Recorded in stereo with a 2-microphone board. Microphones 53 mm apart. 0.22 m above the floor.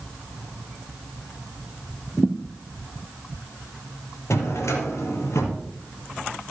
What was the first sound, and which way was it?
A thud, 20° left (ahead or behind).